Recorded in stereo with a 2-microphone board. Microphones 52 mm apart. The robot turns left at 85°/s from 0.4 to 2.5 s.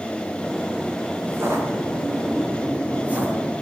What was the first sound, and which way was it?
Footsteps, 25° right (ahead or behind).